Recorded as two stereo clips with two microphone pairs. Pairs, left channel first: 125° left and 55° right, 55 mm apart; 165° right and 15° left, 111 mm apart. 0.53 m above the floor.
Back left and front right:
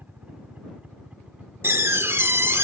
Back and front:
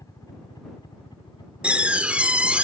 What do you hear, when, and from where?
0.0 s a helicopter: 110° right; by 2.6 s 130° right
1.6 s a door slam: 65° right